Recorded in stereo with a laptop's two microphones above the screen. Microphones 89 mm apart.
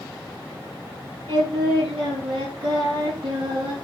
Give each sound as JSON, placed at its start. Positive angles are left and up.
{"t": 1.3, "sound": "singing", "side_deg": -80, "distance_m": 3.0}